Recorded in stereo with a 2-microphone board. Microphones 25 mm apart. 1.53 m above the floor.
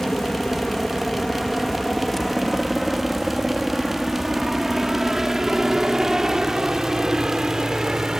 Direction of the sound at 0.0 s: 35° left (ahead or behind).